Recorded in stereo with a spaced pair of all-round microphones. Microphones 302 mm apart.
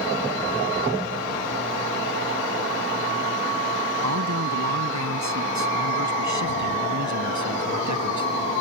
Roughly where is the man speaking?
Right.